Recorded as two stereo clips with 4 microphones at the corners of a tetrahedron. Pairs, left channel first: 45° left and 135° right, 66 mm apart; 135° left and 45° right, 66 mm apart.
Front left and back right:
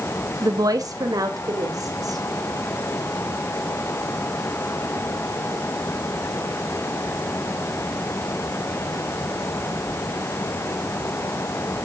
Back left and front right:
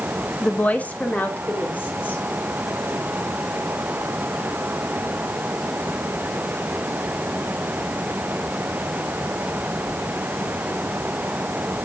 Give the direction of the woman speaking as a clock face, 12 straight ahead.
5 o'clock.